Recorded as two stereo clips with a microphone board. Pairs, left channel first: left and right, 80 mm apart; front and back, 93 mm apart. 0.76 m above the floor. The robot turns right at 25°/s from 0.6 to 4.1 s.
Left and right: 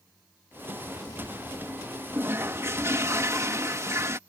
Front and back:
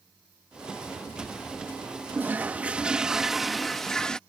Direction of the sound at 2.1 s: 125° right.